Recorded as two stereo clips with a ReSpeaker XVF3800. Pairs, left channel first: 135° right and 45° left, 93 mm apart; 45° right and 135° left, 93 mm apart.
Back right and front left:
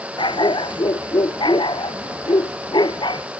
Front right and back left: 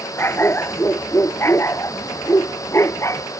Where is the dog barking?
110° right; by 3.2 s 105° right.